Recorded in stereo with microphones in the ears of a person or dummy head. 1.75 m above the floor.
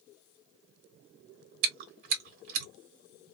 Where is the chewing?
55° right (ahead or behind), 1.0 m.